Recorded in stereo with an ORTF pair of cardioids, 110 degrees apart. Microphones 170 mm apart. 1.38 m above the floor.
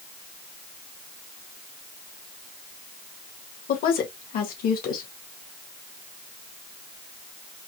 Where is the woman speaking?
60° left, 1.7 m.